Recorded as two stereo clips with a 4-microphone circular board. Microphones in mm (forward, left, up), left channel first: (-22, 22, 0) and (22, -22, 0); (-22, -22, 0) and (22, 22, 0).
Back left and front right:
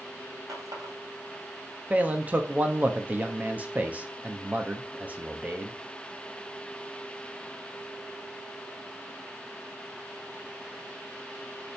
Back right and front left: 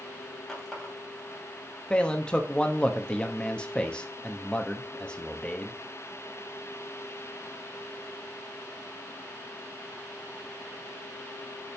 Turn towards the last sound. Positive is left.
turn(degrees=-75)